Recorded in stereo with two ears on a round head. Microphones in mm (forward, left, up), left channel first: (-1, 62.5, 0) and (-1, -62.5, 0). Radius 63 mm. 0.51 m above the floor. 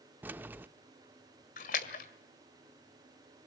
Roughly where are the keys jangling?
Centre.